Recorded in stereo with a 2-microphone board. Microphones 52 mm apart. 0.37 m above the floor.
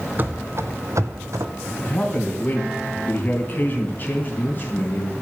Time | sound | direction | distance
0.2 | running footsteps | 40° right (ahead or behind) | 1.0 m
1.8 | a man speaking | 35° left (ahead or behind) | 3 m